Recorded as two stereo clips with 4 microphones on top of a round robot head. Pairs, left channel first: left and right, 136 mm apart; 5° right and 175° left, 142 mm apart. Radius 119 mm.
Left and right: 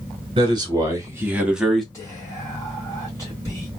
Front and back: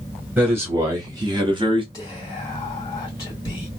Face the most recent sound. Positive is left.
turn(degrees=40)